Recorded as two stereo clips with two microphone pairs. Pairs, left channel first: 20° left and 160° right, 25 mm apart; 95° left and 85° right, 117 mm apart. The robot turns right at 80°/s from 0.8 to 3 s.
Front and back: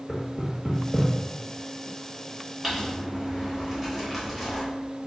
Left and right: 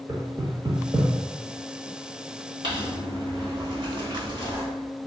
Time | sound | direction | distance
0.1 | knocking | 80° right | 0.8 m
2.6 | crumpling | 90° right | 1.3 m